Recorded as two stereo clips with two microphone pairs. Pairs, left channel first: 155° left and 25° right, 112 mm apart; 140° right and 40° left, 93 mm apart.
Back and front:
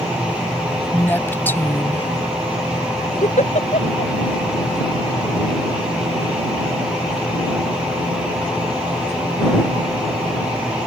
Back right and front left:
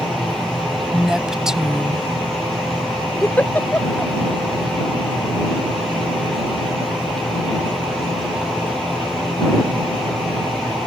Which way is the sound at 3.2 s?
150° left.